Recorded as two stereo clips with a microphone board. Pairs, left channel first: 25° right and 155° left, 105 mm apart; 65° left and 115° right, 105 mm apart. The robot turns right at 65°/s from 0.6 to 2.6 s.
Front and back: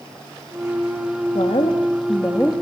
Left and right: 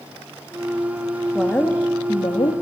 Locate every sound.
1.4 s a woman speaking: 15° right, 1.9 m; by 2.5 s 65° left, 1.9 m